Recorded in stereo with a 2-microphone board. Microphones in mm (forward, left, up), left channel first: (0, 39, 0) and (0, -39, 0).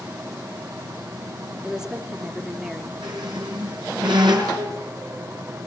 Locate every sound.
1.6 s a woman speaking: 10° right (ahead or behind), 2.5 m
3.0 s a squeak: 65° right (ahead or behind), 4.5 m